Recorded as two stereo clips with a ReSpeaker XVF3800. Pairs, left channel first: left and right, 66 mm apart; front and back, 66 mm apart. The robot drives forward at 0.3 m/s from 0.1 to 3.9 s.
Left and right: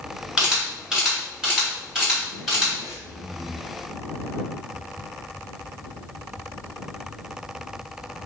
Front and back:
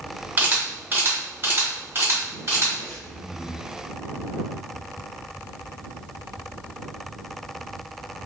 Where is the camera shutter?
160° right, 1.6 m; by 2.7 s 170° right, 2 m.